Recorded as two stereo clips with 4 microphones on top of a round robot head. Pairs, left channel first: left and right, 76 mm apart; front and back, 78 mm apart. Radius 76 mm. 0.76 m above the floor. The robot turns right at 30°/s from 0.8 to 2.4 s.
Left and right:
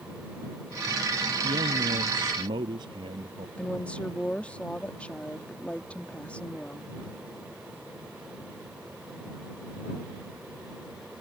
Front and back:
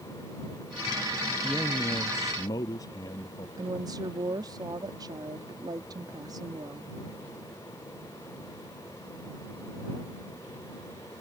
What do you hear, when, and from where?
1.4 s a man speaking: 85° right; by 3.5 s 55° right
3.6 s a woman speaking: 160° left